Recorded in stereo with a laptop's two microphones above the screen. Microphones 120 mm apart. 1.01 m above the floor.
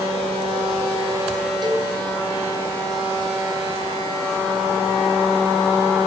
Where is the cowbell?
40° right (ahead or behind), 3 m.